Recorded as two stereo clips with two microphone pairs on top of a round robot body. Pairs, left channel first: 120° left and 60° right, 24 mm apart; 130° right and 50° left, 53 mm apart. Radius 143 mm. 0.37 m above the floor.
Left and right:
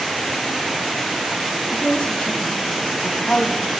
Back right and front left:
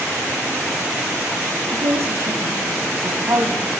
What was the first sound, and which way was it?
A woman speaking, 85° left.